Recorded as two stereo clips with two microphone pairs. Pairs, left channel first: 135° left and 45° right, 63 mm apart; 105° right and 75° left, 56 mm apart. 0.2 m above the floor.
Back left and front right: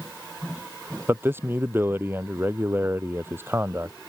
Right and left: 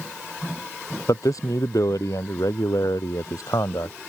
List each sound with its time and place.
1.1 s a man speaking: 100° right